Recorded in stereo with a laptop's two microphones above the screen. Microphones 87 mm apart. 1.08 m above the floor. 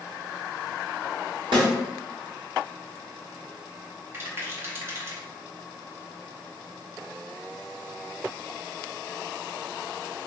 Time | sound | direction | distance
1.5 | a snare drum | 75° right (ahead or behind) | 1.3 m
4.1 | a rattle | 30° right (ahead or behind) | 0.6 m